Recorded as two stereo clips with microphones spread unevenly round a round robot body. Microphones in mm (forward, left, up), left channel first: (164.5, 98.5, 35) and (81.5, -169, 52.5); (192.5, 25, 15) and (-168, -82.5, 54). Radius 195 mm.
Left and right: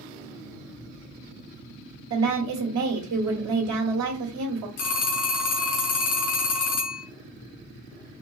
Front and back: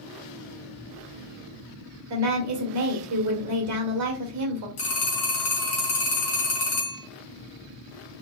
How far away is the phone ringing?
About 2 m.